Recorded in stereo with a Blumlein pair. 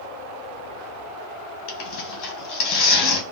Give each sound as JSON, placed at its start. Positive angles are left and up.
{"t": 1.7, "sound": "tearing paper", "azimuth_deg": 40, "distance_m": 1.1}